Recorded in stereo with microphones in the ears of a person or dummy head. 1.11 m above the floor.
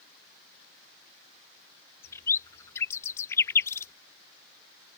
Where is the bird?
15° left (ahead or behind).